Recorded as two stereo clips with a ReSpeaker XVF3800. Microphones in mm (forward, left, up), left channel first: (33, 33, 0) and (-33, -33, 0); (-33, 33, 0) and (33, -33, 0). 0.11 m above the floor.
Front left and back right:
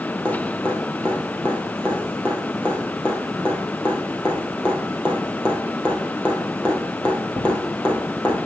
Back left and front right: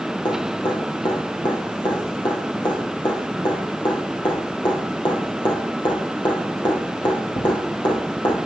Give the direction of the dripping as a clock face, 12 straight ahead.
8 o'clock.